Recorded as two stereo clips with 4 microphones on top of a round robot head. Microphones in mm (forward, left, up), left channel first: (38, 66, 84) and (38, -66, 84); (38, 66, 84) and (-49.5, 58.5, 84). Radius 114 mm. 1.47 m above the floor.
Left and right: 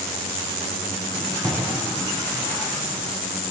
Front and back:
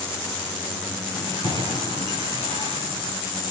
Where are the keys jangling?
160° right, 7.5 m; by 3.1 s 165° right, 8.5 m.